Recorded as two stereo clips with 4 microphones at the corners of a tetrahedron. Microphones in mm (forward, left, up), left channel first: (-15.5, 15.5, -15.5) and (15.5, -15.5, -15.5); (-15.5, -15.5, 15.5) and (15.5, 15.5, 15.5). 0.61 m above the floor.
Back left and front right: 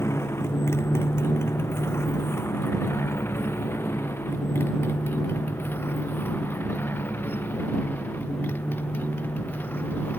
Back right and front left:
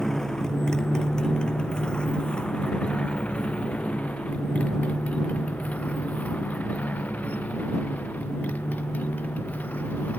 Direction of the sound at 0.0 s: 145° left.